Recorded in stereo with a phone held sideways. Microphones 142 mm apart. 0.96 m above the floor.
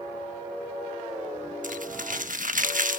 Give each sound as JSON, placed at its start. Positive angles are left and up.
{"t": 1.6, "sound": "crumpling", "side_deg": -65, "distance_m": 1.2}